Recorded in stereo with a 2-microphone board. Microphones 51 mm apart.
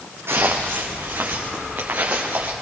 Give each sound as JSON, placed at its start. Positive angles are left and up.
{"t": 0.3, "sound": "footsteps", "side_deg": -60, "distance_m": 3.0}